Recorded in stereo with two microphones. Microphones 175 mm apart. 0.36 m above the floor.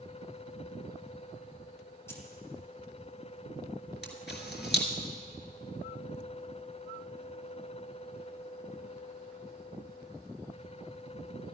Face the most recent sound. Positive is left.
turn(degrees=75)  # may be behind; listen again after turning